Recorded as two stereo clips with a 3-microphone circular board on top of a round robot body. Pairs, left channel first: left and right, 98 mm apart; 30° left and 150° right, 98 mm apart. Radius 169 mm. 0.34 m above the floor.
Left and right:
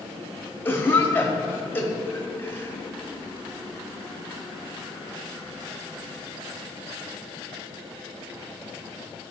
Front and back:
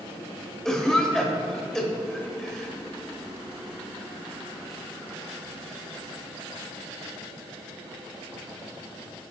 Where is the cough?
110° left, 1.1 m.